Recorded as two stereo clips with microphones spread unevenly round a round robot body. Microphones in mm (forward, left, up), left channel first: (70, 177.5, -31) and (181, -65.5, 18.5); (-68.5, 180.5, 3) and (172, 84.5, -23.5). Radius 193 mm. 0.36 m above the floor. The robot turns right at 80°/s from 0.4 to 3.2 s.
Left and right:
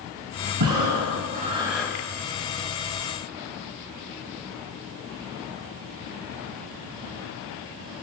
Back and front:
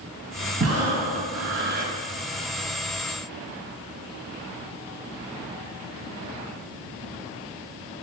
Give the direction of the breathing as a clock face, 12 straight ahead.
2 o'clock.